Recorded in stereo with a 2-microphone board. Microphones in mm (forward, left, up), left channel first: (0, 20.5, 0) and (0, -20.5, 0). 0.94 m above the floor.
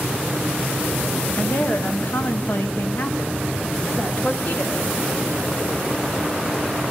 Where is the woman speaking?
45° left (ahead or behind), 1.3 m; by 4.9 s 35° left (ahead or behind), 2 m.